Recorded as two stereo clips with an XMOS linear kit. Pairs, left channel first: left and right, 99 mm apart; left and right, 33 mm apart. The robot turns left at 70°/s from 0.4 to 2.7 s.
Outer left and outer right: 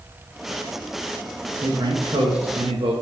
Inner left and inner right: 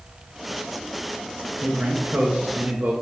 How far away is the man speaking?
About 1.3 m.